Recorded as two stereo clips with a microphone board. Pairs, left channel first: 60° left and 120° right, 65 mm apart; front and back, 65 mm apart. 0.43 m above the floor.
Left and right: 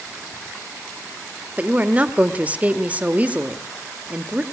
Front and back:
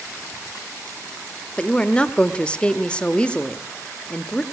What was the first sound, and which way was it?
A woman speaking, 65° right.